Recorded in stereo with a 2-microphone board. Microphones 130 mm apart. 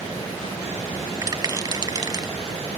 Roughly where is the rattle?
Right.